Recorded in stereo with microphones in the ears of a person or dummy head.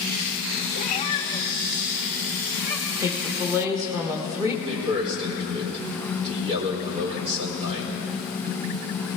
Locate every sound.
0.7 s a cat meowing: 40° left (ahead or behind), 1.1 m; by 2.9 s 10° right (ahead or behind), 2.5 m
3.0 s a woman speaking: 10° right (ahead or behind), 1.7 m
4.7 s a man speaking: 40° right (ahead or behind), 4 m